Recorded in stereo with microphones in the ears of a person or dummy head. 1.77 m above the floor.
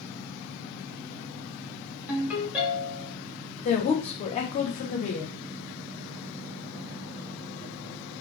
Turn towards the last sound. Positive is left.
turn(degrees=30)  # may be behind; listen again after turning